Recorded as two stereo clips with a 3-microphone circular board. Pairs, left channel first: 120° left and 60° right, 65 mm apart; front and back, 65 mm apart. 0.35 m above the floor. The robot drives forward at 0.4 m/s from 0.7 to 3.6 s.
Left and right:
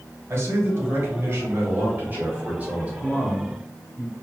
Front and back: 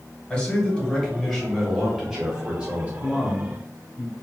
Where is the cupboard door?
I don't hear a cupboard door.